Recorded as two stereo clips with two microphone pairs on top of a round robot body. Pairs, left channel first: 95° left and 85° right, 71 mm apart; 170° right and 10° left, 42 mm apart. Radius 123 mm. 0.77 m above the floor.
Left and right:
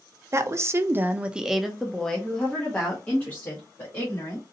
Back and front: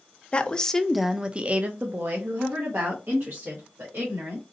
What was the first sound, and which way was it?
A woman speaking, 115° right.